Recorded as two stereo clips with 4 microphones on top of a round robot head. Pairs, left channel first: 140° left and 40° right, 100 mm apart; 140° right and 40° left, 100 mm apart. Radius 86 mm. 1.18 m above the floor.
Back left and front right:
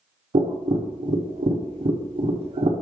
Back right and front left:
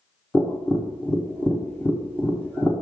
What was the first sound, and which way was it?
Tapping, 70° right.